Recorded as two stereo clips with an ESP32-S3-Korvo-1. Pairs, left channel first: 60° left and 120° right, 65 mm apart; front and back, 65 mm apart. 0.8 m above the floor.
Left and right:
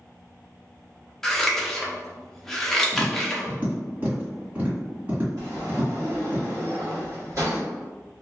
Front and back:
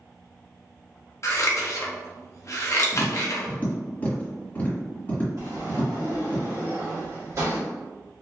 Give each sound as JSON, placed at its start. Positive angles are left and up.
{"t": 1.2, "sound": "scissors", "azimuth_deg": -20, "distance_m": 0.5}
{"t": 2.9, "sound": "tapping", "azimuth_deg": -65, "distance_m": 1.6}
{"t": 5.4, "sound": "a sliding door", "azimuth_deg": -150, "distance_m": 1.1}